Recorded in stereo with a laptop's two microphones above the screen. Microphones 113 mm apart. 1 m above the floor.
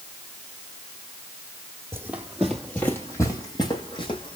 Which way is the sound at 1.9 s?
20° right (ahead or behind).